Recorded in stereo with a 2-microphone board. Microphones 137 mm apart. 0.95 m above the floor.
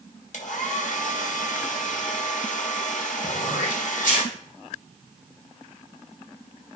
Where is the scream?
I don't hear a scream.